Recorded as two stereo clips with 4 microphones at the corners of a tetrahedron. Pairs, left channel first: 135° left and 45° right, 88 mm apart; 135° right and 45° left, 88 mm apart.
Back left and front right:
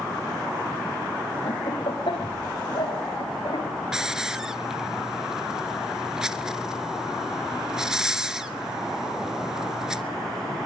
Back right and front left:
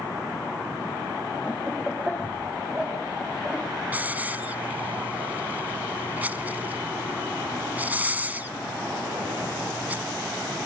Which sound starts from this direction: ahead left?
A hiss, at 3.9 s.